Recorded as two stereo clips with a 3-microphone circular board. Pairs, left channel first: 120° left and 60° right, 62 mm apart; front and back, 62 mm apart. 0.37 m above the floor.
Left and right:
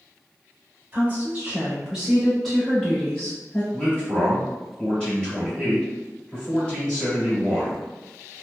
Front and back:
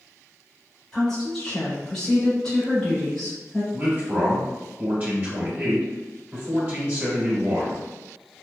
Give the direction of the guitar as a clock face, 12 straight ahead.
No guitar in this recording.